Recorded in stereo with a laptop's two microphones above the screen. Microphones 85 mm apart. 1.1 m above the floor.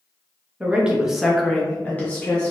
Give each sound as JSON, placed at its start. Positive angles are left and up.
{"t": 0.6, "sound": "a woman speaking", "side_deg": -15, "distance_m": 0.7}